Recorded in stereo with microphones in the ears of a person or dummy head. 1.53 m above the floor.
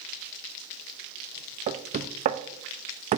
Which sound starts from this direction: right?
Knocking, at 1.7 s.